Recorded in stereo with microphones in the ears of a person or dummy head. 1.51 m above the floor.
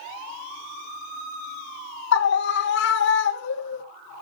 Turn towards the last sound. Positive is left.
turn(degrees=70)  # may be behind; listen again after turning